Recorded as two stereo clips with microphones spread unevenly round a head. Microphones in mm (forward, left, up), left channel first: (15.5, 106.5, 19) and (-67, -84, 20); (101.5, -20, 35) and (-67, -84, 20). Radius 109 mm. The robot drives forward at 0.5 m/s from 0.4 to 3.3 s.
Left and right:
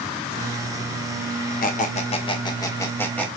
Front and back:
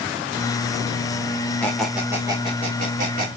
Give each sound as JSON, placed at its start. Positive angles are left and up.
{"t": 1.6, "sound": "a squeak", "azimuth_deg": 95, "distance_m": 0.8}